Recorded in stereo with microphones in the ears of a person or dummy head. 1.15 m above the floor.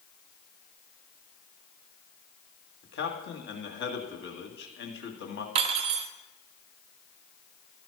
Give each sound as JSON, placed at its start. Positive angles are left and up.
{"t": 2.8, "sound": "a man speaking", "side_deg": 60, "distance_m": 2.0}
{"t": 5.5, "sound": "cutlery clinking", "side_deg": -40, "distance_m": 0.6}